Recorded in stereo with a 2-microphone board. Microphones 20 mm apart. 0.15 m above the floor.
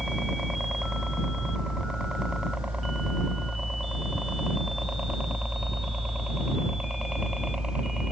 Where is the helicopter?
40° right (ahead or behind); by 8.1 s 55° right (ahead or behind).